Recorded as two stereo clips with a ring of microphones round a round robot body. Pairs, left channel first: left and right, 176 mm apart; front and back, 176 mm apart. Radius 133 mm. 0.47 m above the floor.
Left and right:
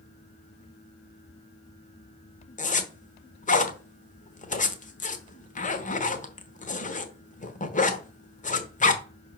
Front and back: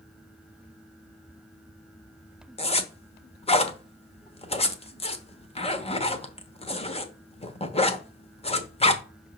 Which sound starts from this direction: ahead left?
A zipper, at 2.6 s.